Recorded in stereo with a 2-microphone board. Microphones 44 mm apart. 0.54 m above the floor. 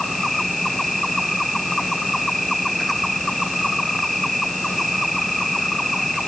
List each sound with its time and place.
0.0 s an insect: centre (ahead or behind)